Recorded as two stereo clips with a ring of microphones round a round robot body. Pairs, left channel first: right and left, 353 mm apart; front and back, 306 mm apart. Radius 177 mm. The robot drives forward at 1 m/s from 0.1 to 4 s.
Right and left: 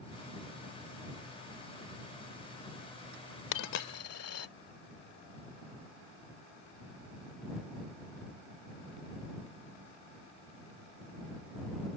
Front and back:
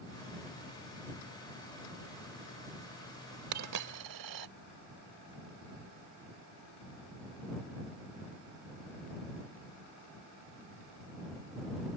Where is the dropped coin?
130° right; by 4.5 s 140° right.